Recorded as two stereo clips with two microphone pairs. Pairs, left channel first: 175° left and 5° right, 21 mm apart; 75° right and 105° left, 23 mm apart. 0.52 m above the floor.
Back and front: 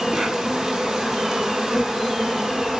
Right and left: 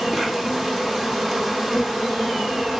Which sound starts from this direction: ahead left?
An insect, at 0.0 s.